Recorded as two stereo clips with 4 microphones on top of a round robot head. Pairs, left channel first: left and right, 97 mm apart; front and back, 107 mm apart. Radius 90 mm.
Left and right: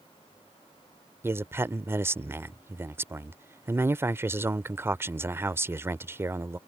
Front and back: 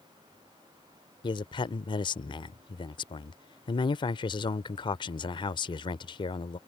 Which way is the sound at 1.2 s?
30° right.